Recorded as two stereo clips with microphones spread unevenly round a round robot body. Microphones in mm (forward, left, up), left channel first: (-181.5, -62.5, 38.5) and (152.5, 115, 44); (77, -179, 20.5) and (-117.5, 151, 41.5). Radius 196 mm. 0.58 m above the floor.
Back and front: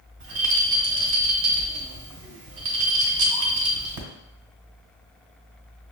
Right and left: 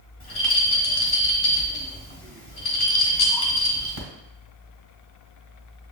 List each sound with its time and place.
0.2 s a rattle: 10° right, 1.2 m